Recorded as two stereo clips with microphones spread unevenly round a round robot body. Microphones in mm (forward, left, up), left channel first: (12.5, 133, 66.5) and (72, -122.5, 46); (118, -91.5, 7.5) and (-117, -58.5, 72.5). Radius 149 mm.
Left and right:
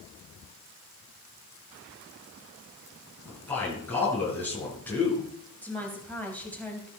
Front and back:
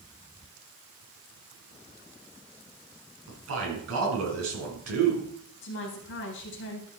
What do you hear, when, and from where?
3.3 s a man speaking: 175° right, 4.5 m
5.6 s a woman speaking: 20° left, 3 m